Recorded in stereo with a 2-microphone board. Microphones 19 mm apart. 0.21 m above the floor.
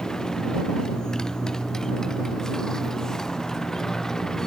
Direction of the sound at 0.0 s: 35° left (ahead or behind).